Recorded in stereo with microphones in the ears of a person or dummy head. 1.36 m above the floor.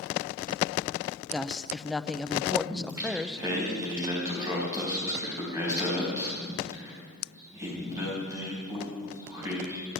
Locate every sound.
1.3 s a woman speaking: 5° left (ahead or behind), 0.6 m
2.7 s singing: 20° right (ahead or behind), 4 m